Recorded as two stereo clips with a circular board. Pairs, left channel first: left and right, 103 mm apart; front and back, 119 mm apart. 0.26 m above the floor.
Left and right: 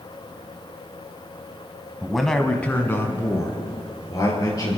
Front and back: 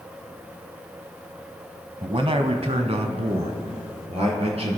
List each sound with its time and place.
2.0 s a man speaking: 170° right, 1.3 m; by 4.8 s 145° left, 4.5 m